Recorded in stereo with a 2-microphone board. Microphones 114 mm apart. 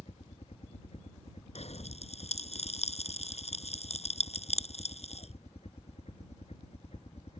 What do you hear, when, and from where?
0.0 s a helicopter: 70° left (ahead or behind)
1.6 s a pop: 70° left (ahead or behind)